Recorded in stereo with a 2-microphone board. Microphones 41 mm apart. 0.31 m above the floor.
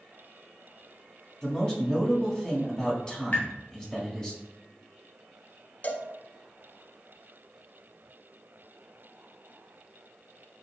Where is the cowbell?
50° left (ahead or behind), 0.6 m.